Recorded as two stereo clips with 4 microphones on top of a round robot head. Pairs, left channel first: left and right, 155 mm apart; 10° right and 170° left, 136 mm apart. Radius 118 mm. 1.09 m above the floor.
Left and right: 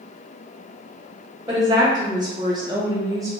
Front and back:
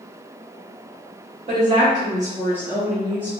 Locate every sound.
1.5 s a woman speaking: 155° right, 1.1 m; by 3.3 s 60° right, 0.7 m